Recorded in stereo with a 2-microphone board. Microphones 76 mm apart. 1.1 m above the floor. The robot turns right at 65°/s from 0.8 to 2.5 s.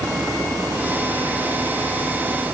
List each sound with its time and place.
Only background noise.